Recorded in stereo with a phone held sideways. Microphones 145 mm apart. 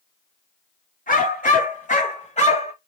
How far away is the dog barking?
About 2 m.